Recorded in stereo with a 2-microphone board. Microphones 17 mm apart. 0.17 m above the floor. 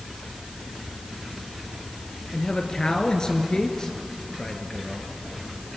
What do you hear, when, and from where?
2.3 s a man speaking: 45° left (ahead or behind), 2 m